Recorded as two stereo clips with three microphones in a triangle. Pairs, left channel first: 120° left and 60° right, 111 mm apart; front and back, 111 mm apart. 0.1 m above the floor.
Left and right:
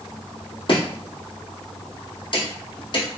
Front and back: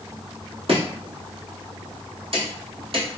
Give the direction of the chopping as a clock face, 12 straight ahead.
7 o'clock.